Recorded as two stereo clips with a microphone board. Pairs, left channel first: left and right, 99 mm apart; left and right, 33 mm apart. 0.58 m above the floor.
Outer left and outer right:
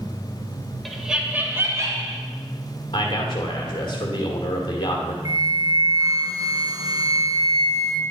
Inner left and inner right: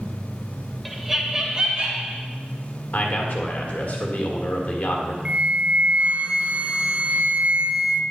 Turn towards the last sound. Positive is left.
turn(degrees=-45)  # may be behind; listen again after turning